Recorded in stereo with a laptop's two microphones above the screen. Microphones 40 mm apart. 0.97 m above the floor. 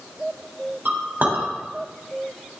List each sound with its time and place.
0.8 s a clink: 50° right (ahead or behind), 3.5 m